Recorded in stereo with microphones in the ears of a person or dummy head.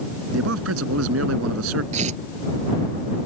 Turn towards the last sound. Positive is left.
turn(degrees=-40)  # may be behind; listen again after turning